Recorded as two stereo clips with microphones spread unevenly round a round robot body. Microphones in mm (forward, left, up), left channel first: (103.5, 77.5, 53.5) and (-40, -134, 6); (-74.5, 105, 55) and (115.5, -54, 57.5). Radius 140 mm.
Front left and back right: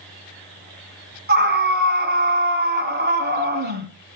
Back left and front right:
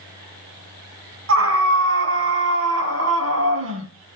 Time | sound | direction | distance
1.3 | a scream | 75° right | 3.5 m